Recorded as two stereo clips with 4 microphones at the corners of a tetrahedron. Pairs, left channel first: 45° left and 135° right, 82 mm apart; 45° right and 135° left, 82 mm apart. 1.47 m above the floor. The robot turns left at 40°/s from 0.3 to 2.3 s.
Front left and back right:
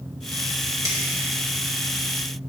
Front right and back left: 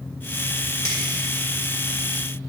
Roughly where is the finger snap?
Right.